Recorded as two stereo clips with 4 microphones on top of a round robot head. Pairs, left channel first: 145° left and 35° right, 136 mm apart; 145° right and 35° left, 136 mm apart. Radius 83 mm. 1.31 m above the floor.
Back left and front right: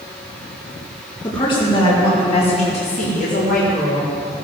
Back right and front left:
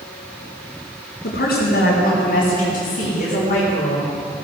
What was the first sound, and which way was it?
A woman speaking, 155° right.